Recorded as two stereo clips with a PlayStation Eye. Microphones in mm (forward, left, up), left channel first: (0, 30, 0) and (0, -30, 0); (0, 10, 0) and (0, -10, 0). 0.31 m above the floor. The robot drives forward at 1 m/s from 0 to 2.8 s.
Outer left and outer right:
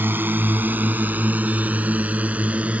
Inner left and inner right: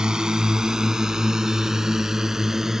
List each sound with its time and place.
0.0 s a drone: 35° right (ahead or behind); by 2.8 s 25° right (ahead or behind)